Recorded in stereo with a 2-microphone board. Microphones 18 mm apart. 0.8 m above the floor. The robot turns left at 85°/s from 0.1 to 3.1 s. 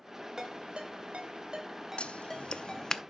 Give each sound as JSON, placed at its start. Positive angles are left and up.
{"t": 0.4, "sound": "a ringtone", "side_deg": -25, "distance_m": 1.8}
{"t": 2.0, "sound": "scissors", "side_deg": 70, "distance_m": 0.5}